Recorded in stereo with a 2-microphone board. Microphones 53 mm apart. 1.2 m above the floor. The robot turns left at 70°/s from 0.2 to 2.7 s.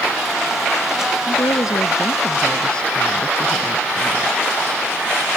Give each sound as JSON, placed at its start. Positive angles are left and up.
{"t": 1.3, "sound": "a woman speaking", "azimuth_deg": 120}